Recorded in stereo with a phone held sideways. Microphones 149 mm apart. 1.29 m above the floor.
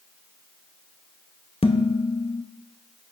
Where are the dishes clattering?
40° left (ahead or behind), 0.8 m.